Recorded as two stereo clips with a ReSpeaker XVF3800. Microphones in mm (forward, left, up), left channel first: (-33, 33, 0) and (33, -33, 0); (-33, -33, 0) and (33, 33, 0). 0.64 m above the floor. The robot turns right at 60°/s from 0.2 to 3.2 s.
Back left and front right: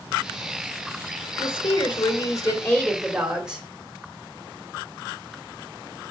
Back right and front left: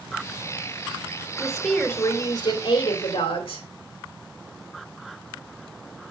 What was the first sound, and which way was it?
A woman speaking, 125° left.